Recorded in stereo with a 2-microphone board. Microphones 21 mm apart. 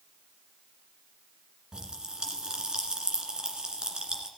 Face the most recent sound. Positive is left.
turn(degrees=-40)  # may be behind; listen again after turning